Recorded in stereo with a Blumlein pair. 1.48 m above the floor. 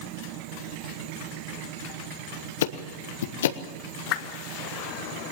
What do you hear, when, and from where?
2.6 s ticking: 60° left, 1.2 m
4.1 s a whoosh: 40° left, 1.4 m